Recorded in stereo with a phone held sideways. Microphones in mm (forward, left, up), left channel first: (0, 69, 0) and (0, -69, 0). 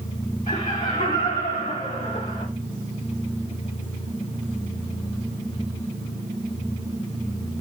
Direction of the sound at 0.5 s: 55° left (ahead or behind).